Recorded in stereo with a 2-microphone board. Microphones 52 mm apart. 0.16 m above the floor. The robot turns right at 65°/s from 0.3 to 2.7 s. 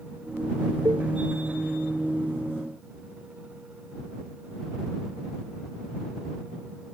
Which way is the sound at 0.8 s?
85° right.